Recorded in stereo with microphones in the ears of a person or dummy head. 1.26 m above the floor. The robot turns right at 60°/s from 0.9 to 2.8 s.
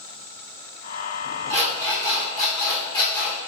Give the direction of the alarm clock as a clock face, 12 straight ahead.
2 o'clock.